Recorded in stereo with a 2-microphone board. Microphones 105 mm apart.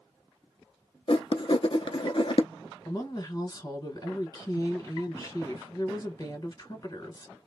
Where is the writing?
50° left (ahead or behind), 0.5 m.